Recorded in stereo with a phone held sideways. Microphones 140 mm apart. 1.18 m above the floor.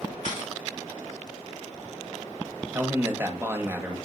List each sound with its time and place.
0.2 s a camera shutter: 75° left (ahead or behind), 2.5 m
2.7 s a man speaking: 15° right (ahead or behind), 0.9 m